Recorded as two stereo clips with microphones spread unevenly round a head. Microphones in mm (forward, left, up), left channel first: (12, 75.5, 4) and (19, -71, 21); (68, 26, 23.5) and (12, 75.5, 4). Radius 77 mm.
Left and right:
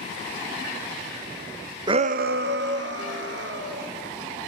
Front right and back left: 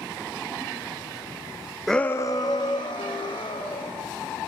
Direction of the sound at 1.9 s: 145° right.